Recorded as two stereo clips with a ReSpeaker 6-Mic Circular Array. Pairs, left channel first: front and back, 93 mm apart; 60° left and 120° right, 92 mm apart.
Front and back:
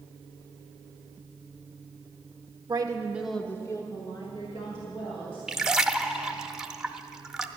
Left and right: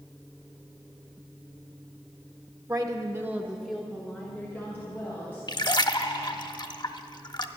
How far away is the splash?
About 0.5 m.